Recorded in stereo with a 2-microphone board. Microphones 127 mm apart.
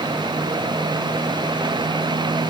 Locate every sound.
Only background noise.